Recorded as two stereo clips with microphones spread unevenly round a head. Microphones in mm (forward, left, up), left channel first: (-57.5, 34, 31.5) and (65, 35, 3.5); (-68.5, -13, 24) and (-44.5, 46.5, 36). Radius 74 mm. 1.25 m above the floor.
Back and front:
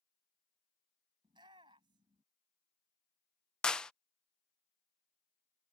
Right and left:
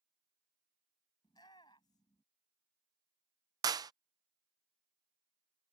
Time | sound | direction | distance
1.2 | a shout | 65° right | ?
3.6 | a clap | 95° left | ?